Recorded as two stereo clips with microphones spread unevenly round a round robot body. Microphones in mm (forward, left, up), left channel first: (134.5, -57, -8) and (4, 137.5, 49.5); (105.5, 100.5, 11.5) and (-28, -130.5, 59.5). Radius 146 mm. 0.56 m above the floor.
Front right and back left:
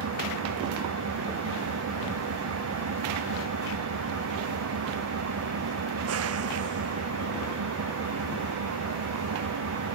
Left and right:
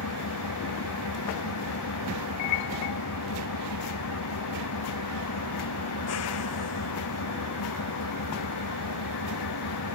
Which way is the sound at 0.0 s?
100° left.